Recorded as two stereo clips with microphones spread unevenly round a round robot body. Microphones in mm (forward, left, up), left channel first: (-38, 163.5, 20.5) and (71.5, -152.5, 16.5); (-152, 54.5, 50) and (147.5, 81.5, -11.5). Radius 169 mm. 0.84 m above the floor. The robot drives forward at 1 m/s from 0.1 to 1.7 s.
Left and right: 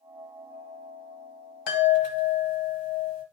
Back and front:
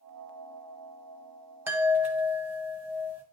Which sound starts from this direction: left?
A chime, at 1.7 s.